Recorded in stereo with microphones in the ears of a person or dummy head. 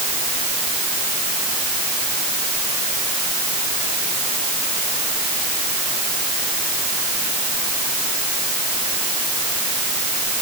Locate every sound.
Only background noise.